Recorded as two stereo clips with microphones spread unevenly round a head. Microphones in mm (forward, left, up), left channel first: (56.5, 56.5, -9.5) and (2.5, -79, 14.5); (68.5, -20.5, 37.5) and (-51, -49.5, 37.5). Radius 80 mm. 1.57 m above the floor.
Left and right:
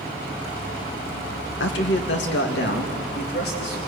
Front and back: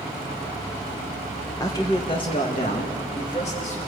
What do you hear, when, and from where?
1.6 s a man speaking: 85° left, 1.3 m; by 3.8 s 55° left, 3 m